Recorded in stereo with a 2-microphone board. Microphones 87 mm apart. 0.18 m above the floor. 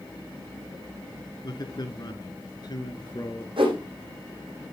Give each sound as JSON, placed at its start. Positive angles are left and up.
{"t": 1.4, "sound": "a man speaking", "side_deg": 50, "distance_m": 1.9}
{"t": 3.6, "sound": "a whoosh", "side_deg": -65, "distance_m": 4.5}